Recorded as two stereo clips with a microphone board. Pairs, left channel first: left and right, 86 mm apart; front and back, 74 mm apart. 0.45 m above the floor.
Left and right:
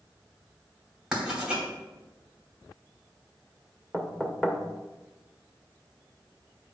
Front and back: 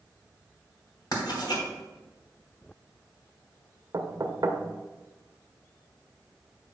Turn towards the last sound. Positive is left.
turn(degrees=175)